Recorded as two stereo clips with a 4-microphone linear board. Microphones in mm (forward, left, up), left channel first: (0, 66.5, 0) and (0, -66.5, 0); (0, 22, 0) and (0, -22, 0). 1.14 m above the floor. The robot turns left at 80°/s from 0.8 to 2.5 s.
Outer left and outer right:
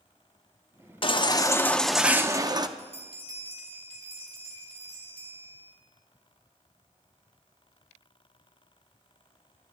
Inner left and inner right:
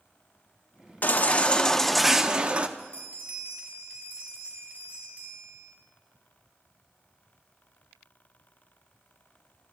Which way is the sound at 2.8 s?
45° right (ahead or behind).